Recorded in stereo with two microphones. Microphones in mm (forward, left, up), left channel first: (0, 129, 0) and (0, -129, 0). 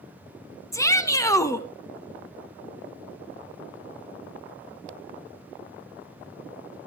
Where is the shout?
10° left (ahead or behind), 1.3 m.